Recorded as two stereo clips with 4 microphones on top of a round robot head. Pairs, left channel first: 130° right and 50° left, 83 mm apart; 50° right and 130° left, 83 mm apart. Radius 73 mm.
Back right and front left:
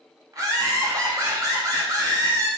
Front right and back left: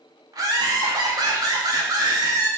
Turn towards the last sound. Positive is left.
turn(degrees=90)